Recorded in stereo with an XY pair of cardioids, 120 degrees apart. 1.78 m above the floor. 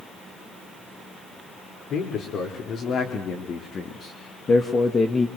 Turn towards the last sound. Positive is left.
turn(degrees=20)